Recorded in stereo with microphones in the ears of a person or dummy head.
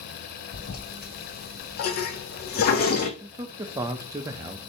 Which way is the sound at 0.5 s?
50° left (ahead or behind).